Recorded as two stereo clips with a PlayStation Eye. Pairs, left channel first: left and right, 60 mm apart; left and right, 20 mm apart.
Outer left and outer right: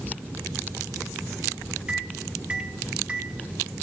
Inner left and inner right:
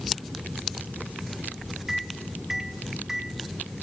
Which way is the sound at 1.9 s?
20° right (ahead or behind).